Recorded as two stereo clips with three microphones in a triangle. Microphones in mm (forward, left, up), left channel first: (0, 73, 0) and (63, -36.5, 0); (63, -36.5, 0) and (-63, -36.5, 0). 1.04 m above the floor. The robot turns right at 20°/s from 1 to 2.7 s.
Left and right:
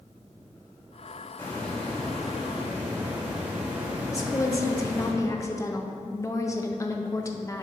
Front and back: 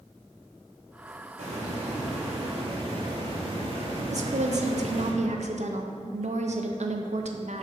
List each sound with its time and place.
1.4 s a hiss: 165° right, 1.4 m; by 5.1 s 135° right, 1.4 m
4.1 s a woman speaking: straight behind, 0.6 m